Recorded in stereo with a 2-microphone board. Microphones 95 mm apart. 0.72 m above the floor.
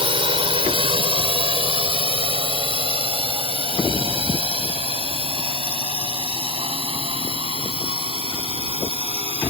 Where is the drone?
70° right (ahead or behind); by 9.5 s 80° right.